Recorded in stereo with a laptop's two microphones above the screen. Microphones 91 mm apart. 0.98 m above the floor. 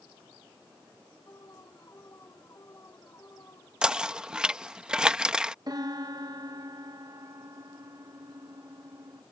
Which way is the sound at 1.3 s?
35° left (ahead or behind).